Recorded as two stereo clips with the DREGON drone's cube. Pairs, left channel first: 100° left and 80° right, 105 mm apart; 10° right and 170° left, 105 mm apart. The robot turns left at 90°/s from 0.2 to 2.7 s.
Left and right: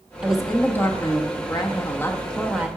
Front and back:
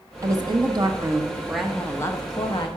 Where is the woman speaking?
150° right, 0.9 m; by 2.7 s 15° right, 0.9 m.